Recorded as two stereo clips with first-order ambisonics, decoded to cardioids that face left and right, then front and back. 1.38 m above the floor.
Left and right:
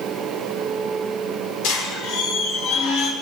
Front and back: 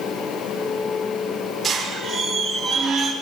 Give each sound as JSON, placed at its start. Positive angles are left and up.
{"t": 1.6, "sound": "a squeak", "azimuth_deg": 100, "distance_m": 4.5}